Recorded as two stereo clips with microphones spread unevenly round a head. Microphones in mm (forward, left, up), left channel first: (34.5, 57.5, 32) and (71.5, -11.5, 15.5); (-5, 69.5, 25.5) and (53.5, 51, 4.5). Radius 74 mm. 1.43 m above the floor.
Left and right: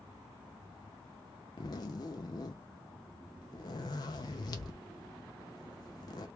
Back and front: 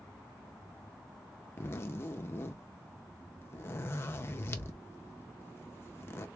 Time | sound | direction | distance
1.6 | a zipper | 145° left | 0.6 m